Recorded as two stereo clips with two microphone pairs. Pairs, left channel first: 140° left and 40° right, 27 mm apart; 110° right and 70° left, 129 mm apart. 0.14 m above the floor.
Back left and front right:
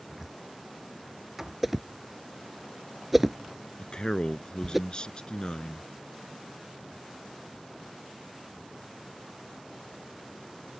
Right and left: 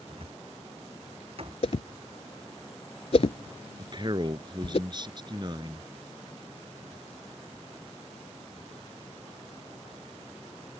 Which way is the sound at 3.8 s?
100° left.